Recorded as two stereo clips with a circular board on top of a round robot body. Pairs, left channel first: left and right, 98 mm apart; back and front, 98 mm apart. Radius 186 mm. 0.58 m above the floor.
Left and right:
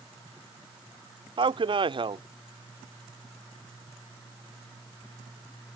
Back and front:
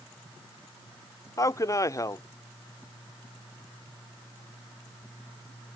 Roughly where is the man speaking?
Behind right.